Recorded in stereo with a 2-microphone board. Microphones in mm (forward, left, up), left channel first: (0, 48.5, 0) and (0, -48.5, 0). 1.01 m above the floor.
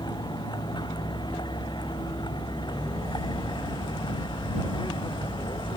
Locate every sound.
0.0 s a vehicle: 50° left (ahead or behind); by 5.8 s 55° left (ahead or behind)